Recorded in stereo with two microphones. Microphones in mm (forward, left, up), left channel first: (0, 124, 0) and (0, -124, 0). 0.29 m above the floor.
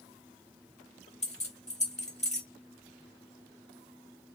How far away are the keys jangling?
About 1.1 m.